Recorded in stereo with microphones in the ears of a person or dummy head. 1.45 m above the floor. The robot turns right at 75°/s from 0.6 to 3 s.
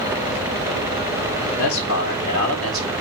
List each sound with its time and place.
1.6 s a man speaking: 95° left, 3 m; by 2.9 s 165° right, 3 m